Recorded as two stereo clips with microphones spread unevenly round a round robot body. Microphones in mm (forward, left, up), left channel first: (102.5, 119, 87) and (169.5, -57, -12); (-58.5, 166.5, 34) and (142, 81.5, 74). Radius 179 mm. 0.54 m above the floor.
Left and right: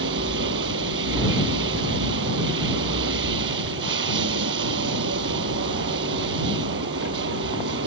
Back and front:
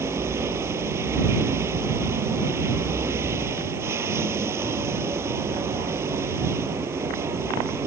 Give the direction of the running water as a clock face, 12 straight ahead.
4 o'clock.